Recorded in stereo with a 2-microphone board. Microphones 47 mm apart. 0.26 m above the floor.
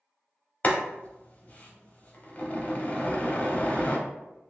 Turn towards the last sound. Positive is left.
turn(degrees=35)  # may be behind; listen again after turning